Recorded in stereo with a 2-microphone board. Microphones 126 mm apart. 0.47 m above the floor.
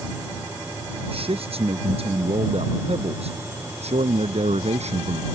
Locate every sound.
1.1 s a man speaking: 50° right (ahead or behind); by 5.2 s 60° right (ahead or behind)